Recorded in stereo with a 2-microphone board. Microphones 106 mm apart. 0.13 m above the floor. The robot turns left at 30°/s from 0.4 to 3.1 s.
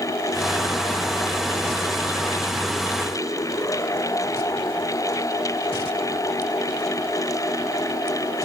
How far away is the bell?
No bell in this recording.